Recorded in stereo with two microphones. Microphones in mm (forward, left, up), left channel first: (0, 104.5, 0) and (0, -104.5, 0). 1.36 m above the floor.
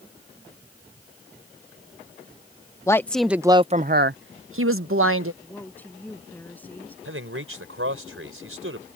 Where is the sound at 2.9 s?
15° left (ahead or behind); by 5.3 s 80° right.